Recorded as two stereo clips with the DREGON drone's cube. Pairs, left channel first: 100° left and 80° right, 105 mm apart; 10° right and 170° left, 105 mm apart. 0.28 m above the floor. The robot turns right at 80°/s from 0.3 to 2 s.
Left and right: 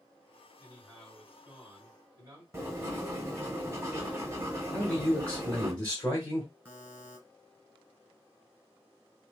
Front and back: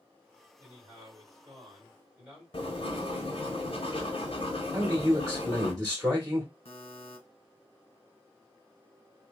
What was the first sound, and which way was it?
A man speaking, 155° left.